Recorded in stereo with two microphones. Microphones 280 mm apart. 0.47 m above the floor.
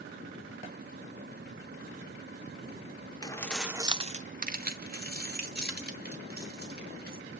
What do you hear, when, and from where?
3.2 s keys jangling: 15° left (ahead or behind), 0.8 m; by 7.2 s 35° right (ahead or behind), 3.5 m